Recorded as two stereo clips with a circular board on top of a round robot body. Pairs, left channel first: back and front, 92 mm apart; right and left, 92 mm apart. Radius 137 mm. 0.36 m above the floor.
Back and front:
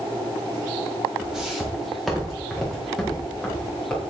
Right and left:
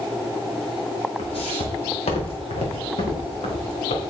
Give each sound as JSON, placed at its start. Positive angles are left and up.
{"t": 1.2, "sound": "footsteps", "azimuth_deg": -85, "distance_m": 2.5}